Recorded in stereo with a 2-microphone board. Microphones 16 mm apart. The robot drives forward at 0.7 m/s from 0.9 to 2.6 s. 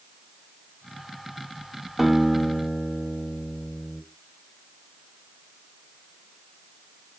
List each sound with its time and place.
2.0 s a guitar: 30° right (ahead or behind), 1.4 m; by 4.0 s 35° right (ahead or behind), 1.3 m